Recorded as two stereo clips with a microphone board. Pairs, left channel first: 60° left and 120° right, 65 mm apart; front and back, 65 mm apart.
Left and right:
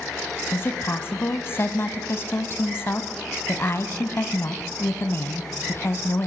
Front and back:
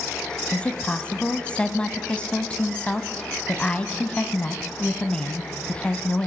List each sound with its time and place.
0.5 s a woman speaking: 60° left, 1.1 m